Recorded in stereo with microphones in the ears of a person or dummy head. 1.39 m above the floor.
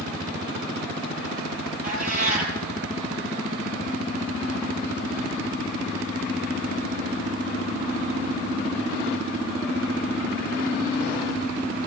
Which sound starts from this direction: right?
A cat meowing, at 1.8 s.